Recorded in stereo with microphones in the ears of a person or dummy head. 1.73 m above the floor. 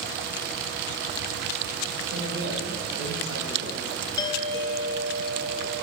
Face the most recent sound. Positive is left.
turn(degrees=25)  # may be behind; listen again after turning